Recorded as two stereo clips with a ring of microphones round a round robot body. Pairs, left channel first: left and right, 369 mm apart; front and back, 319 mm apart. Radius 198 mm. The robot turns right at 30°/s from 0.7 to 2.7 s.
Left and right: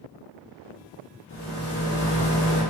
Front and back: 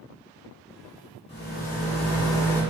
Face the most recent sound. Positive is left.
turn(degrees=85)